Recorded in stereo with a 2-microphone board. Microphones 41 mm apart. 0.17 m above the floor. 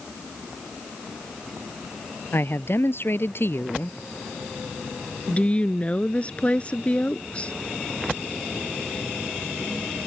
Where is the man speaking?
65° left (ahead or behind).